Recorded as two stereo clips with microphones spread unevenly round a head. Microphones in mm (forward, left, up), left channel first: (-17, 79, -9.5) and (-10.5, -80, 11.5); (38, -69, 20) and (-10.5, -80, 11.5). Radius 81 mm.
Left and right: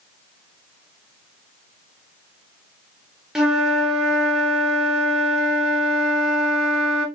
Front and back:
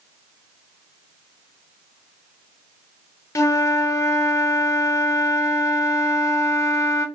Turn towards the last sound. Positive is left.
turn(degrees=5)